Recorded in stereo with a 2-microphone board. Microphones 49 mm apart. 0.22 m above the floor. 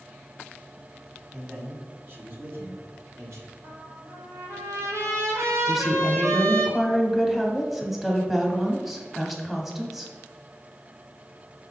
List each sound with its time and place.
1.3 s a man speaking: 20° right (ahead or behind), 1.3 m; by 3.5 s 60° right (ahead or behind), 2.5 m
3.6 s a trumpet: 75° right (ahead or behind), 1.8 m
5.7 s a woman speaking: 5° right (ahead or behind), 1.0 m